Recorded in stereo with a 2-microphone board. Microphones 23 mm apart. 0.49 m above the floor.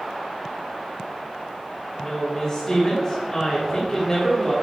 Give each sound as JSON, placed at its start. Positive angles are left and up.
{"t": 2.0, "sound": "a woman speaking", "side_deg": 25, "distance_m": 1.4}